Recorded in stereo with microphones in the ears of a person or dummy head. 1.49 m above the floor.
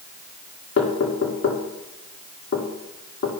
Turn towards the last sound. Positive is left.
turn(degrees=70)  # may be behind; listen again after turning